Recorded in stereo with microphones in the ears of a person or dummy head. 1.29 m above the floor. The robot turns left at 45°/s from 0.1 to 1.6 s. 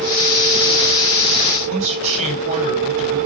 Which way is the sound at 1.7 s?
40° right (ahead or behind).